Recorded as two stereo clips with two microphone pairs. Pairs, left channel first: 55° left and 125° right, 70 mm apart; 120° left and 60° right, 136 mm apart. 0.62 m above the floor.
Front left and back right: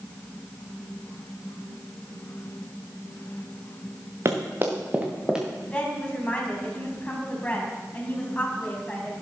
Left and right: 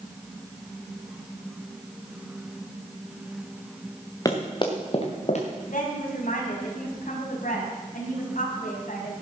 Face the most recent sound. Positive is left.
turn(degrees=125)